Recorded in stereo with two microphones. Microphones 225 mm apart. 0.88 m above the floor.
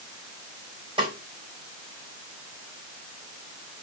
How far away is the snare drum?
About 4 m.